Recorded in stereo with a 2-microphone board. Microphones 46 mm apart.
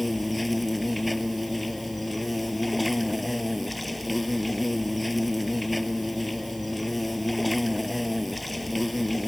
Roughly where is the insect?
Centre.